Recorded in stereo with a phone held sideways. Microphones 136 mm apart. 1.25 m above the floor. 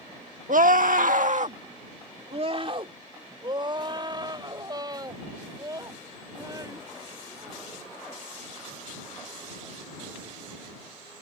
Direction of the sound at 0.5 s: 75° right (ahead or behind).